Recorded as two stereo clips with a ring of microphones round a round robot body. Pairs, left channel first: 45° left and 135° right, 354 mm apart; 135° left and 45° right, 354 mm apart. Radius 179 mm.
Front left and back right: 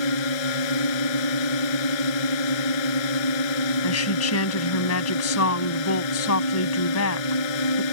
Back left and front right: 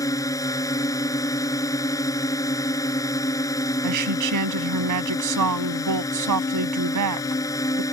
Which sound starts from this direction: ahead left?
A drone, at 0.0 s.